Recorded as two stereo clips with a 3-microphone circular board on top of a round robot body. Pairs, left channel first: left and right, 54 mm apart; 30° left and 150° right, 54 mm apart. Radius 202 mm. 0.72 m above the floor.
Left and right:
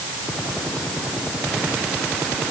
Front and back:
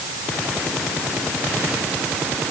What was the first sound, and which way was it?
Only background noise.